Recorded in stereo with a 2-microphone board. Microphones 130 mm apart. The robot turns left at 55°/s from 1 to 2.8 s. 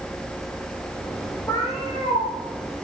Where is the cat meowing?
160° left, 6 m; by 2.3 s 110° left, 6 m.